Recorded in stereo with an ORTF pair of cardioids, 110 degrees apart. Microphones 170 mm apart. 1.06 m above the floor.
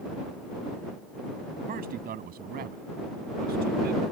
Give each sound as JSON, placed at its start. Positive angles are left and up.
{"t": 1.7, "sound": "a man speaking", "azimuth_deg": -60}